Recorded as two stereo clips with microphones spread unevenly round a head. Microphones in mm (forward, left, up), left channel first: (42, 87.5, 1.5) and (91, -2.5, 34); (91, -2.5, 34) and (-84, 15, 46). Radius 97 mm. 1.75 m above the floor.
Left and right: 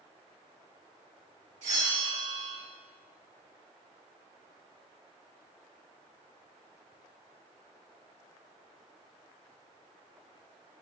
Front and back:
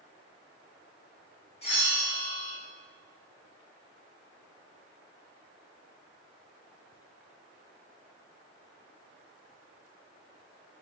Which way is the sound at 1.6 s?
65° right.